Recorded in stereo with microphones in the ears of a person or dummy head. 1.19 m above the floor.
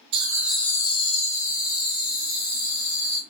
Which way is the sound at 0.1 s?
25° right (ahead or behind).